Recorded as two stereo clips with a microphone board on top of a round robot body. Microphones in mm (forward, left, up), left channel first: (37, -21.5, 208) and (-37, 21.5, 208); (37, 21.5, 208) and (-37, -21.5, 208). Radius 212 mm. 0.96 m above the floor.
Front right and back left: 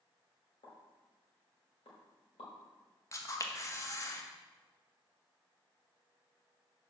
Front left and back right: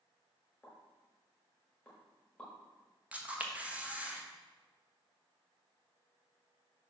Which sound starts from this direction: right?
A camera shutter, at 3.1 s.